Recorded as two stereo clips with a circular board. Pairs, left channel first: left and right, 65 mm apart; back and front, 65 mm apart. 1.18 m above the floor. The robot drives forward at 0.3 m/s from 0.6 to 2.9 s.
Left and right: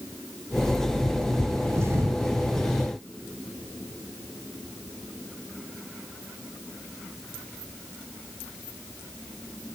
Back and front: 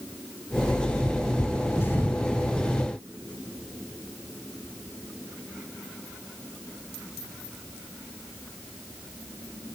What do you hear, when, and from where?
1.7 s a thud: 130° right, 2 m; by 2.2 s 135° right, 2 m